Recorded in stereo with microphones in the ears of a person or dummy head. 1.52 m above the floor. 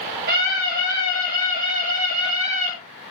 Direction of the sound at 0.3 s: 60° right (ahead or behind).